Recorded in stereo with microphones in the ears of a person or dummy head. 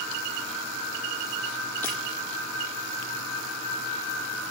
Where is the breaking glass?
15° left (ahead or behind), 7.5 m.